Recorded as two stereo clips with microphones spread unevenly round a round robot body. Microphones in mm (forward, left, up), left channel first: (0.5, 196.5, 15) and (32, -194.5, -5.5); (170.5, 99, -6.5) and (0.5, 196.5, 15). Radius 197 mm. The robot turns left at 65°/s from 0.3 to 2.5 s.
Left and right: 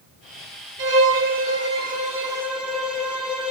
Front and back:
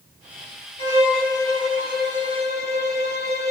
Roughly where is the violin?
Ahead right.